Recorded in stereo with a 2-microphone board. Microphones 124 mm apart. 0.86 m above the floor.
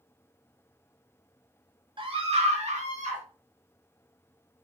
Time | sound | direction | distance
2.0 | a scream | 40° right (ahead or behind) | 1.1 m